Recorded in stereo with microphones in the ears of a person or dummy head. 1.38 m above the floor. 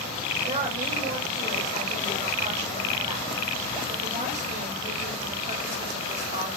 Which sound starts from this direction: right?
A woman speaking, at 0.5 s.